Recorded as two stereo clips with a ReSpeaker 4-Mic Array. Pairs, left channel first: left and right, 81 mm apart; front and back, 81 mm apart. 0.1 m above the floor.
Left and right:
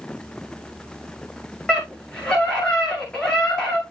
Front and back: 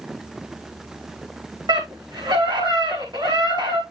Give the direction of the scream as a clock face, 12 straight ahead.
6 o'clock.